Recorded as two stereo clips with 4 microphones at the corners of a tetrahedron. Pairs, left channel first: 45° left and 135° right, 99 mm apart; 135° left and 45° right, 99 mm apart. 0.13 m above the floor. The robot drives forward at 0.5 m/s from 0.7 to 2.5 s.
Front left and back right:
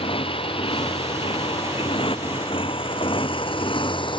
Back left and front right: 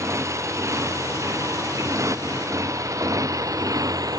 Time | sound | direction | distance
0.0 | a motorcycle | 15° left | ?